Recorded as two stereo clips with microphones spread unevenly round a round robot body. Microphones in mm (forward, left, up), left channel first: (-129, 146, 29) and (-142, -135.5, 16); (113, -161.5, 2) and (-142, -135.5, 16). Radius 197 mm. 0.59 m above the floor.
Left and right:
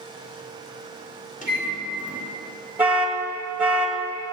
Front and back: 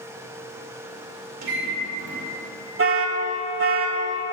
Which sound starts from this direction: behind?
An alarm, at 2.8 s.